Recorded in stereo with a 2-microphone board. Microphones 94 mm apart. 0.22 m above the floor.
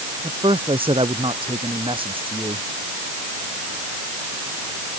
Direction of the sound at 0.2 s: 80° right.